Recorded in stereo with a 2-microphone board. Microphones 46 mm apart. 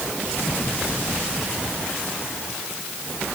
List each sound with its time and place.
Only background noise.